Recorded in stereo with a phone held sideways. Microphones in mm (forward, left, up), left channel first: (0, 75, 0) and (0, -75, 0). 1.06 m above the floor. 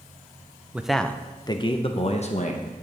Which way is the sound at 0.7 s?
10° right (ahead or behind).